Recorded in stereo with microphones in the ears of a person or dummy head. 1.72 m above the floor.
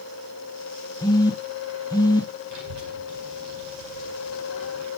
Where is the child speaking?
55° right (ahead or behind), 5 m.